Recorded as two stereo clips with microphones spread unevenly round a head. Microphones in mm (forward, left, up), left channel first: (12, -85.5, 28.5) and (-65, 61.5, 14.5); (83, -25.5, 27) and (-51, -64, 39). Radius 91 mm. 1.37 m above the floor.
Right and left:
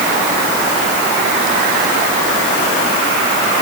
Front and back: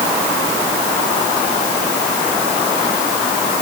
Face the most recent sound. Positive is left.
No sound to turn to.